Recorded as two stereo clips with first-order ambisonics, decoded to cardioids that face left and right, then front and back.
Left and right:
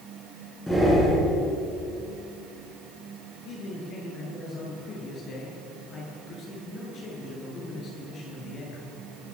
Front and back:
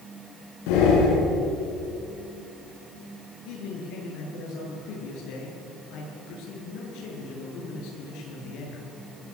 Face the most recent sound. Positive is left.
turn(degrees=30)